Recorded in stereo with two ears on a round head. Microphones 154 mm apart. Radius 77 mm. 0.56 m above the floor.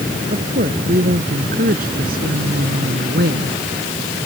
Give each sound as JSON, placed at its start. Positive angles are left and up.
{"t": 0.3, "sound": "a woman speaking", "side_deg": -45}